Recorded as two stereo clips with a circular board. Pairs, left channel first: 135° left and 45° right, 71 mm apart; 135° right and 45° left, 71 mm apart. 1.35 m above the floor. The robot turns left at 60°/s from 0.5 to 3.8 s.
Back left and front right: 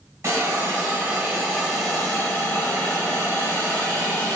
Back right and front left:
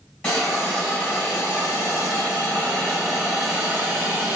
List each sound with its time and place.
0.2 s a hiss: 70° right, 1.4 m; by 4.4 s 90° left, 1.4 m